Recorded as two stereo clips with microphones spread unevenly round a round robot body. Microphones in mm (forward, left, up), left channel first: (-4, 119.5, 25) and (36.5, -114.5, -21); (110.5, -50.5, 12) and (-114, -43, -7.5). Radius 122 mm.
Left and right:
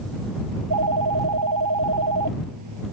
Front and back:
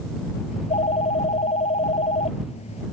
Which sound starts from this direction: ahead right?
A phone ringing, at 0.5 s.